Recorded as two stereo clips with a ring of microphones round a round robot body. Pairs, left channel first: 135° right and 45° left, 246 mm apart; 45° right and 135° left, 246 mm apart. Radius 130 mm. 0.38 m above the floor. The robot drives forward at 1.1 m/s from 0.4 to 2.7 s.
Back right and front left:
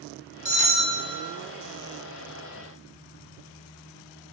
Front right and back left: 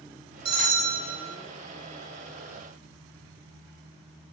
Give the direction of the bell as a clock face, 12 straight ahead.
8 o'clock.